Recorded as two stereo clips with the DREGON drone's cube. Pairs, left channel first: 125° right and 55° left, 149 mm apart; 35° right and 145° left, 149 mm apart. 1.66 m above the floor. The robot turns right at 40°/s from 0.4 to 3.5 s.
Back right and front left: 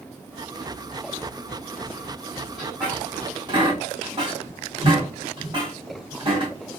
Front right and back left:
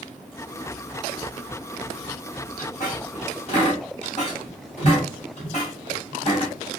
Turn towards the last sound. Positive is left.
turn(degrees=0)